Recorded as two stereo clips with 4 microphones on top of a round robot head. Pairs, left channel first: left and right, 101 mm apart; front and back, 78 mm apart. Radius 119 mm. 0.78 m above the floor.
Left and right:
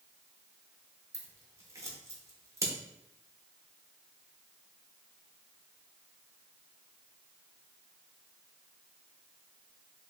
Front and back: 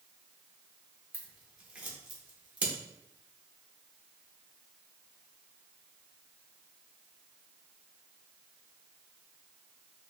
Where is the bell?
No bell in this recording.